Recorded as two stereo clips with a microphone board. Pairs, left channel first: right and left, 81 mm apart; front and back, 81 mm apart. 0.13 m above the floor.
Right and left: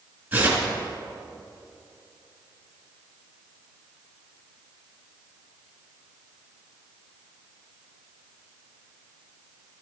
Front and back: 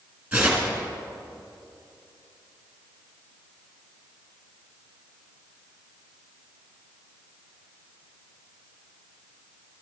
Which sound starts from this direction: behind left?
Tearing paper, at 0.3 s.